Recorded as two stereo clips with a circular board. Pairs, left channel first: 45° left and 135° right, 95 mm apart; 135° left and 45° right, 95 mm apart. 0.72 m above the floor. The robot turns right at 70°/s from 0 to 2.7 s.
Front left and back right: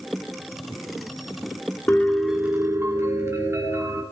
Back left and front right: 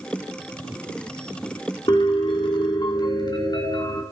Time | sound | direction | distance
1.9 | a piano | 110° left | 1.9 m